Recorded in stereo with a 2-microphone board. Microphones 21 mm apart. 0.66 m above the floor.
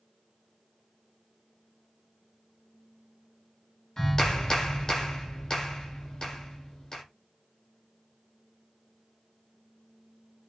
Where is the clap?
30° left (ahead or behind), 1.6 m.